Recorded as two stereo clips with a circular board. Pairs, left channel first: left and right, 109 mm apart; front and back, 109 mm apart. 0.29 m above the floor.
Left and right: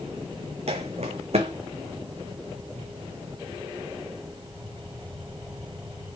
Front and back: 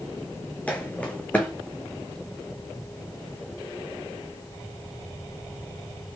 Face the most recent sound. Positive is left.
turn(degrees=-80)